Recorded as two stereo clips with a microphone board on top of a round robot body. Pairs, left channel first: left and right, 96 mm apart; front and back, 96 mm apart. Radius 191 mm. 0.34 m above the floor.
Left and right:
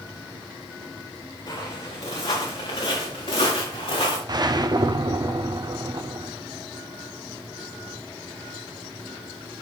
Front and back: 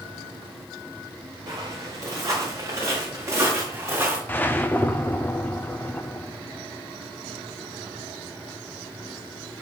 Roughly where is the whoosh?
Ahead right.